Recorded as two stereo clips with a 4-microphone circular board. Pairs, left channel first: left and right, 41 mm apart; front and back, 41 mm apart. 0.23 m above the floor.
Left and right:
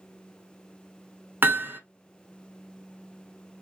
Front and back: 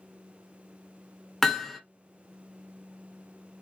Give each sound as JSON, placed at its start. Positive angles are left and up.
{"t": 1.4, "sound": "hammering", "azimuth_deg": -80, "distance_m": 0.9}